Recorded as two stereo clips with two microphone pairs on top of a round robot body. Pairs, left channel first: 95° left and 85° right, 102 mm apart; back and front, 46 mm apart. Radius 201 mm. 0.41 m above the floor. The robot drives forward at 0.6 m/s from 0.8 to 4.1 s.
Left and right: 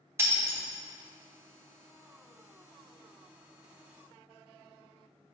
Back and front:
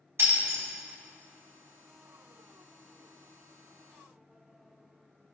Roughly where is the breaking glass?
Ahead right.